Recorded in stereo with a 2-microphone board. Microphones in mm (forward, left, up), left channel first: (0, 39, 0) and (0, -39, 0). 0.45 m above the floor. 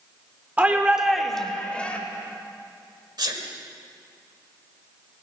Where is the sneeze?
60° right (ahead or behind), 1.5 m.